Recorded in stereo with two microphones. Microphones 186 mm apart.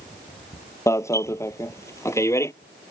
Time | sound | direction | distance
0.9 | an alarm | 15° left (ahead or behind) | ?